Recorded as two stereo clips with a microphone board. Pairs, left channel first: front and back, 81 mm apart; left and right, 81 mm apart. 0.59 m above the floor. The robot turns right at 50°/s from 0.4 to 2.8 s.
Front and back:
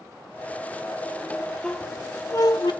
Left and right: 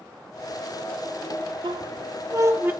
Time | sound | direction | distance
1.6 | a squeak | 80° right | 0.6 m